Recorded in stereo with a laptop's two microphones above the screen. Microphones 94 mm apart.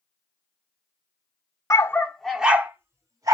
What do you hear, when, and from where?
1.7 s a dog barking: 30° left (ahead or behind), 0.9 m; by 3.4 s 45° right (ahead or behind), 1.3 m